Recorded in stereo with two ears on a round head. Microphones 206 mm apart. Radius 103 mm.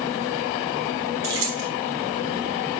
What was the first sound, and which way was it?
Keys jangling, 70° right (ahead or behind).